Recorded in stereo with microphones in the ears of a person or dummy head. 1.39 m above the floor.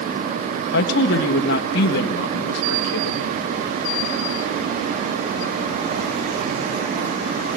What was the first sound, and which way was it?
A woman speaking, 60° left (ahead or behind).